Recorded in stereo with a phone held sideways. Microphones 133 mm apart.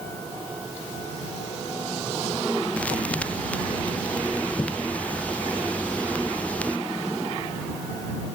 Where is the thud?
10° left (ahead or behind).